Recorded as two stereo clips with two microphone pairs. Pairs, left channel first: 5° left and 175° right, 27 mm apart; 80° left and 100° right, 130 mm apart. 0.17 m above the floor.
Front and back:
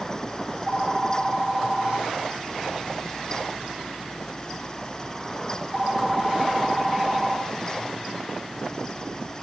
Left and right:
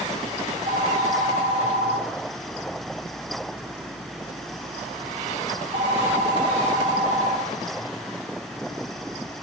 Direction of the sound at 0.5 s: 85° right.